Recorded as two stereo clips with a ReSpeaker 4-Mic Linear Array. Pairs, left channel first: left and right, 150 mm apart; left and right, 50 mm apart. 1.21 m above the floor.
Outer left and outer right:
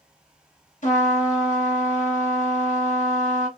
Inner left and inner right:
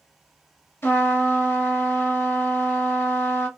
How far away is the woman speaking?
No woman speaking in this recording.